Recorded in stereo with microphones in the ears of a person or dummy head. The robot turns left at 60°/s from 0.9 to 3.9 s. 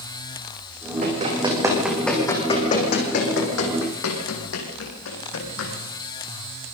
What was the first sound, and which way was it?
Running footsteps, 50° right (ahead or behind).